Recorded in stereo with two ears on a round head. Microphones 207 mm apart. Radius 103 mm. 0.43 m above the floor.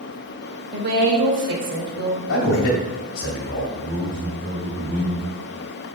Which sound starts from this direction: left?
A man speaking, at 2.3 s.